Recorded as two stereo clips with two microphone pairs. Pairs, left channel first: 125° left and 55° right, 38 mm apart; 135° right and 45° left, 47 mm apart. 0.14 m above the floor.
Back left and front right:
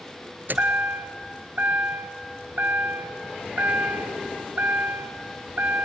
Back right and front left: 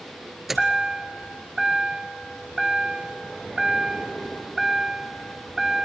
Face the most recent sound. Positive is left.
turn(degrees=-40)